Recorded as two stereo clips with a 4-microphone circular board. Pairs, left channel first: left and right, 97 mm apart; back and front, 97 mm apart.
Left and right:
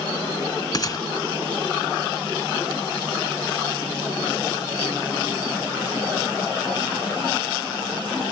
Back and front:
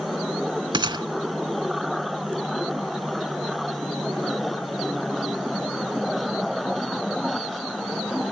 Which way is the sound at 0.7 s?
40° left.